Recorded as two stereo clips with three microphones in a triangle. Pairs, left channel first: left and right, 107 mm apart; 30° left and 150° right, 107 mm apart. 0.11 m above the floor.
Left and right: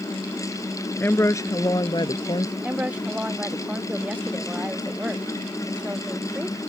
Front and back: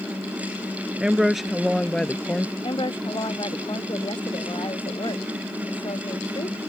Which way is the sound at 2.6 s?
10° right.